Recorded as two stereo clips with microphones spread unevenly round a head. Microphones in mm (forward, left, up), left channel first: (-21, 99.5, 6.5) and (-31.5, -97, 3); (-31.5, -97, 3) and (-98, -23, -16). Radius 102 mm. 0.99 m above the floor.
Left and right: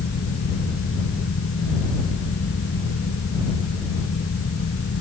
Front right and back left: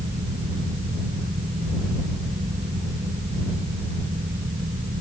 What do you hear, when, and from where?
0.0 s a fan: 115° left